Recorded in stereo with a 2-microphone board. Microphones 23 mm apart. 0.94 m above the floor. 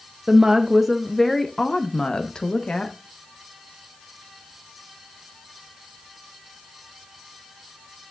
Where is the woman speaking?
30° right (ahead or behind), 0.7 m; by 3.0 s 45° left (ahead or behind), 1.4 m.